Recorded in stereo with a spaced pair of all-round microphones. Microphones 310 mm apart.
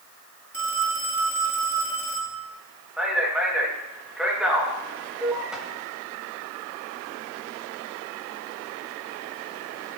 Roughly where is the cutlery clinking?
I don't hear cutlery clinking.